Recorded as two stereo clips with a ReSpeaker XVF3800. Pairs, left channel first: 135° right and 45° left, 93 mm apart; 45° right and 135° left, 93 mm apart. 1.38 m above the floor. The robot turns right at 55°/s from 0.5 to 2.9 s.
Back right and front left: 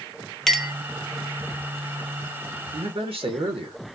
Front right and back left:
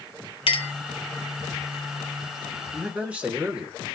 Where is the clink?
50° right, 0.8 m; by 0.7 s 35° right, 0.8 m.